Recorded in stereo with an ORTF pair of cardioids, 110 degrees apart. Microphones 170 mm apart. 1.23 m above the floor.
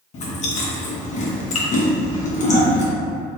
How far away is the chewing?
About 1.0 m.